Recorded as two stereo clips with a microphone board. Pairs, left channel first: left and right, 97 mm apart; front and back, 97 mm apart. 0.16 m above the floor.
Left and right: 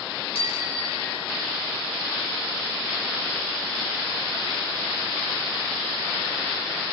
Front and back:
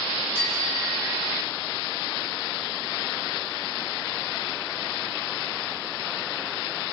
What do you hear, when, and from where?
0.3 s a bicycle bell: 75° left, 5.5 m; by 1.5 s 85° left, 4.5 m